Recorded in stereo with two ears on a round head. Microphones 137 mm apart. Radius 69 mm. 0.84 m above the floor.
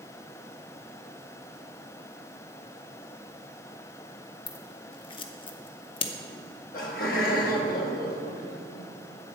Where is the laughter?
65° left (ahead or behind), 1.4 m.